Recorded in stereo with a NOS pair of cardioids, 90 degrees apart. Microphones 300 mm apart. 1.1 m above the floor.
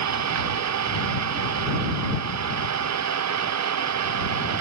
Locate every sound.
0.0 s an engine running: 60° right